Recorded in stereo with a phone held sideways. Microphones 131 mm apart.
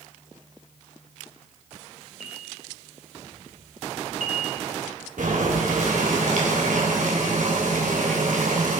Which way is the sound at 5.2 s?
75° right (ahead or behind).